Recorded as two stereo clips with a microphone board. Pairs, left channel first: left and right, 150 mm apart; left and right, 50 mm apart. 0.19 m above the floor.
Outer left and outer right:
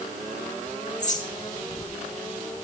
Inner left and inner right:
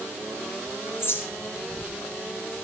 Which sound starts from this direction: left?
A bird, at 1.0 s.